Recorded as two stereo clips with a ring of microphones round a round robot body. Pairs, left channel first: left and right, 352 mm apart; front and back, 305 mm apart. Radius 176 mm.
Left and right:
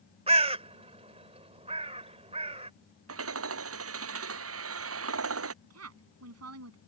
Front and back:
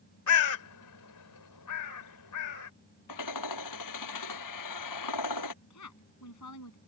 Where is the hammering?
40° right.